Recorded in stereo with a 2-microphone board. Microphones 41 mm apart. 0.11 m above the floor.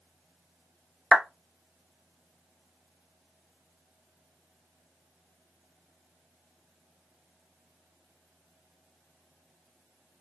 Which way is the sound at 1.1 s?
30° right (ahead or behind).